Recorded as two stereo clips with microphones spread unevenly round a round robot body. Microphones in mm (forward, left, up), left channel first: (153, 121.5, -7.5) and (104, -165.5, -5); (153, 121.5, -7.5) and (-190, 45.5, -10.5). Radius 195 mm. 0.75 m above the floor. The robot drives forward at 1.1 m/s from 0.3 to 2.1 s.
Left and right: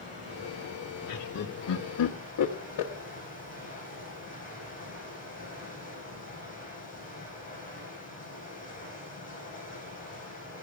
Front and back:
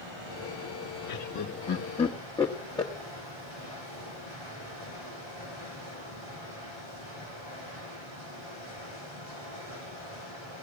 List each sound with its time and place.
0.0 s running water: 160° right, 6.5 m; by 10.6 s 165° right, 8.5 m
1.1 s laughter: 40° left, 1.5 m; by 2.9 s 90° left, 1.1 m